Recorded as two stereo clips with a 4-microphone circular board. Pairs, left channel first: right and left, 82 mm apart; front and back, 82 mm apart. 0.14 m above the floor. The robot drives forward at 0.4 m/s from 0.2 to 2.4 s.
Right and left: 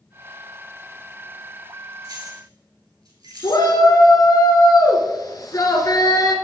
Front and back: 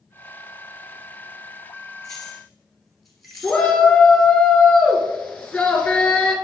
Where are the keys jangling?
85° left, 2 m; by 3.7 s 90° left, 2 m.